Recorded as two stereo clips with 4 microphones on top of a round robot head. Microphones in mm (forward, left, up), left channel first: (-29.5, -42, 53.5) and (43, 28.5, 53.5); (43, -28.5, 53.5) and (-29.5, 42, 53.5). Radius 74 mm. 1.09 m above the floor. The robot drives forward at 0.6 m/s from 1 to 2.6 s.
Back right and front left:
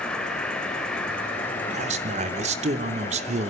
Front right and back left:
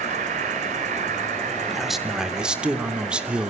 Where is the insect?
140° left, 2.5 m; by 3.5 s 150° left, 3.5 m.